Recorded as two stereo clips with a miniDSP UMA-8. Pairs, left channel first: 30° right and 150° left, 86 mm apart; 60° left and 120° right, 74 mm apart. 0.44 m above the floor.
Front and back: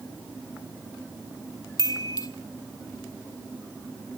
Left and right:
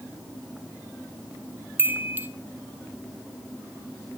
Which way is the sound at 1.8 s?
60° right.